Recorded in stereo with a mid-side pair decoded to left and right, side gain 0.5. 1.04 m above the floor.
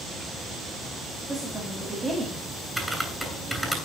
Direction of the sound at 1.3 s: 20° right.